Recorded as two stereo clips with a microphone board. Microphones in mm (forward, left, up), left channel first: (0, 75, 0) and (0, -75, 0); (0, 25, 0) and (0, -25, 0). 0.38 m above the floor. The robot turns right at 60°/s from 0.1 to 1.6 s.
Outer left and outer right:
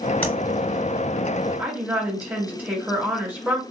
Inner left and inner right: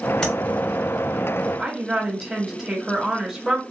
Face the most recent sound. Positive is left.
turn(degrees=-10)  # may be behind; listen again after turning